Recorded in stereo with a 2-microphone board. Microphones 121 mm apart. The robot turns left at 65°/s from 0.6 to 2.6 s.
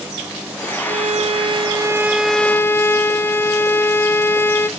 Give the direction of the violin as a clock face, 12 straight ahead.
2 o'clock.